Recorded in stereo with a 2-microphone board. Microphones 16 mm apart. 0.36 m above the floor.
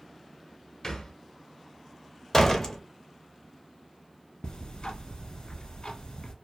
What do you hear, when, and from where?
0.8 s a thud: 45° left (ahead or behind), 0.7 m
2.3 s a door slam: 25° left (ahead or behind), 0.6 m
4.4 s ticking: 65° left (ahead or behind), 0.8 m